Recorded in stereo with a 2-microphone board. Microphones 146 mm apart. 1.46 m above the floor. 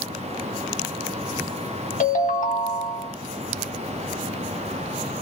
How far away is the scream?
No scream in this recording.